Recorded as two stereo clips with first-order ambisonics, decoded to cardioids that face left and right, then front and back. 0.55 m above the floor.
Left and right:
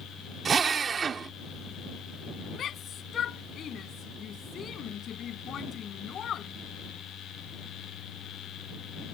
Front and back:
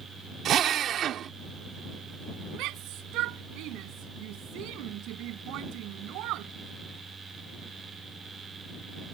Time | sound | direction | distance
0.5 | a drill | 150° right | ?
2.5 | a shout | 150° left | ?